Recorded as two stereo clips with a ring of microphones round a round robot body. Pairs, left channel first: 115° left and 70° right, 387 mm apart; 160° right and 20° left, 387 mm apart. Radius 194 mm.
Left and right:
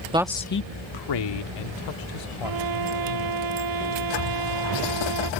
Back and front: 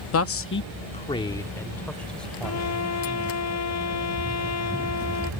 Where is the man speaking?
135° right; by 3.4 s 110° left.